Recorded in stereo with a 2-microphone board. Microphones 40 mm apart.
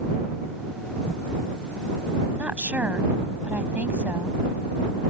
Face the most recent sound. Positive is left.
turn(degrees=-45)  # may be behind; listen again after turning